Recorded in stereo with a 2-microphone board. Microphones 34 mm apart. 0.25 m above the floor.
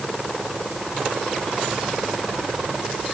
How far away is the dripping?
No dripping in this recording.